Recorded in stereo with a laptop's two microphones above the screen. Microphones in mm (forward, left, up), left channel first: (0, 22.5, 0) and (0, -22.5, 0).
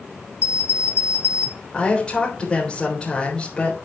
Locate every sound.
0.4 s an alarm clock: 70° left (ahead or behind), 2 m
1.7 s a woman speaking: 20° left (ahead or behind), 3.5 m